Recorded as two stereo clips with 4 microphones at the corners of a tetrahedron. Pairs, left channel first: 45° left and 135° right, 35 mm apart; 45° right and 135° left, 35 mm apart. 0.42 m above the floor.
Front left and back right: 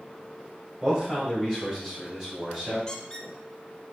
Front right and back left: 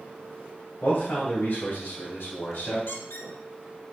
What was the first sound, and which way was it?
A man speaking, 75° right.